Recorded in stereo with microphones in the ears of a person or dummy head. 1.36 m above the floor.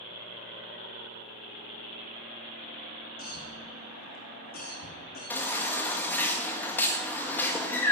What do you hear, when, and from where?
3.2 s a cough: 45° left (ahead or behind), 2.5 m
5.3 s a baby crying: 10° left (ahead or behind), 1.4 m